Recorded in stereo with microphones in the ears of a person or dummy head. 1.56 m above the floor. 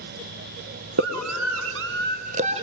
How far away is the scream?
About 1.2 m.